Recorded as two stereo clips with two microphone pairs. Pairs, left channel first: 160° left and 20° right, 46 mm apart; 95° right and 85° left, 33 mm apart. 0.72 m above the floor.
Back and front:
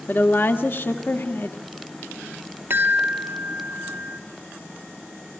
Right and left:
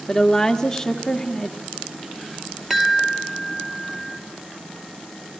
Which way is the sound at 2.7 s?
Straight ahead.